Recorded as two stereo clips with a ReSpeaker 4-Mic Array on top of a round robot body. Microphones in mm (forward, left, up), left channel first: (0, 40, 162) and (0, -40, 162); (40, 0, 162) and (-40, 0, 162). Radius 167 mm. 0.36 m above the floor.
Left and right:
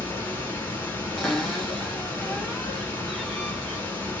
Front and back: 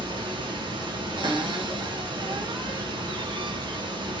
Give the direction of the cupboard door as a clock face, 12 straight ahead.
6 o'clock.